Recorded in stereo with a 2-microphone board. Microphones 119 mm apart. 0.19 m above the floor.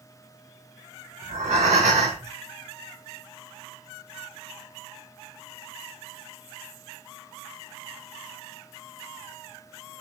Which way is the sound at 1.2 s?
85° right.